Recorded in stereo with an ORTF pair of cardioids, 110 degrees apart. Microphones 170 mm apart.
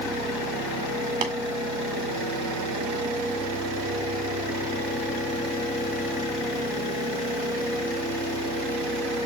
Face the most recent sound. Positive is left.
turn(degrees=-55)